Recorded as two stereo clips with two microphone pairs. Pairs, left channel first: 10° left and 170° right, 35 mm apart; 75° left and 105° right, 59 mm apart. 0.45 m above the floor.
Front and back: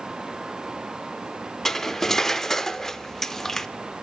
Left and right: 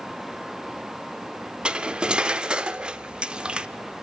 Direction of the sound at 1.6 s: 50° right.